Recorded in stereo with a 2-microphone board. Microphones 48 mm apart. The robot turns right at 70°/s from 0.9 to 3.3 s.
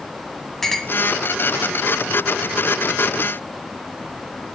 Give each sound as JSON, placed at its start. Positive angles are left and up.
{"t": 0.6, "sound": "a clink", "side_deg": 5, "distance_m": 1.2}